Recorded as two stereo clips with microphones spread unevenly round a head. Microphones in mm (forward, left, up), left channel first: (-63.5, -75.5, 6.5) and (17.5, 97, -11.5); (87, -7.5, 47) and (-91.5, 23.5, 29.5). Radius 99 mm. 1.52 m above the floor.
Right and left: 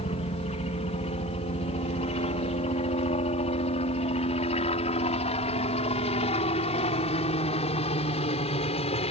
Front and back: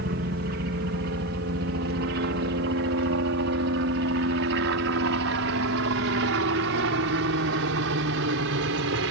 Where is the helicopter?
170° right; by 9.1 s 175° right.